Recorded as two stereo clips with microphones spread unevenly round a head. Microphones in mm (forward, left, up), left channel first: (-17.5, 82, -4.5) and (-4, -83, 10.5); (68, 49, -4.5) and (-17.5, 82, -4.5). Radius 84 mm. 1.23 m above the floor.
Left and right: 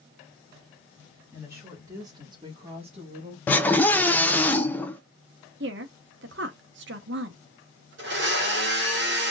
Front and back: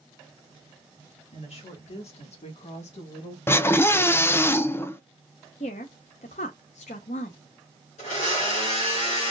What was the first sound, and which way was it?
A woman speaking, 5° right.